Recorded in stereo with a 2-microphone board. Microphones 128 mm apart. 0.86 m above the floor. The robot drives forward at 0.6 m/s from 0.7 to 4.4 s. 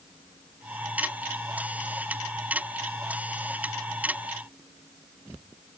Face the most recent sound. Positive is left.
No sound to turn to.